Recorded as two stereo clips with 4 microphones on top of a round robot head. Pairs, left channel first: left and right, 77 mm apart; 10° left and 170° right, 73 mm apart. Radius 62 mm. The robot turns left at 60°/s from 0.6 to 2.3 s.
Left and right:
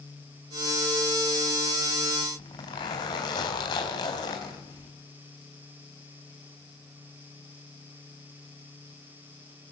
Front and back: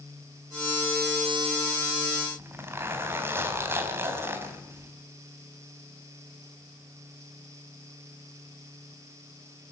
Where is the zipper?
135° left, 4 m.